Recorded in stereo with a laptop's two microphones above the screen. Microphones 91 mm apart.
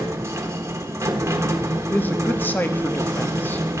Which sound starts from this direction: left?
A man speaking, at 1.9 s.